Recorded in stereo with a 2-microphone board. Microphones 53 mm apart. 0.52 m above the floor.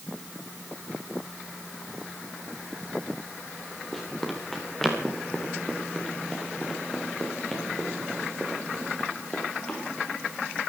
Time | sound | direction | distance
3.9 | running footsteps | centre (ahead or behind) | 6 m